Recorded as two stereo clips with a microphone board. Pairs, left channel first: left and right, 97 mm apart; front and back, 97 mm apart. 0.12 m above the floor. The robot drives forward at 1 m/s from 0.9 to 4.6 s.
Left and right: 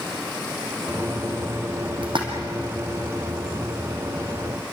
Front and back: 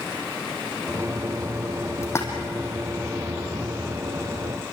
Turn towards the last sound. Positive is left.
turn(degrees=-105)